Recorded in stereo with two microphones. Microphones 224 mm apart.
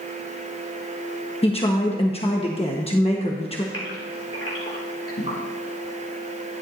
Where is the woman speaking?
25° left (ahead or behind), 1.2 m.